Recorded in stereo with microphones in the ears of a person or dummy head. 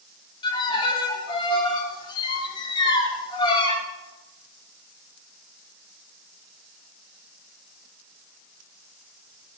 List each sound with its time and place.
0.4 s a violin: 25° left (ahead or behind), 2.5 m